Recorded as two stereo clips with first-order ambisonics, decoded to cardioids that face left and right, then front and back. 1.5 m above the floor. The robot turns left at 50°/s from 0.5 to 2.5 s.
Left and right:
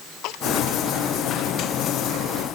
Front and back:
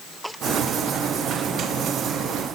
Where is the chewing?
I don't hear chewing.